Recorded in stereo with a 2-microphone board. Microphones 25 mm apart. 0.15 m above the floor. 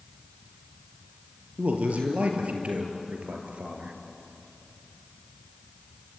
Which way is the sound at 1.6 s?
65° right (ahead or behind).